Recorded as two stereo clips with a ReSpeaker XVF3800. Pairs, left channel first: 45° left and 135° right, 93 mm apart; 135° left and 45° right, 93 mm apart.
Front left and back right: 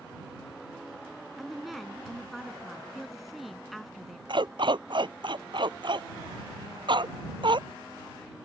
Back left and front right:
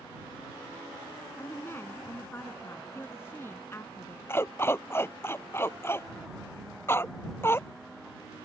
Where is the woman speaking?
135° left.